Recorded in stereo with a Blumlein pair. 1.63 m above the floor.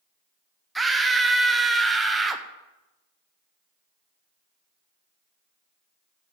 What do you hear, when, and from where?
0.8 s a scream: 5° right, 1.5 m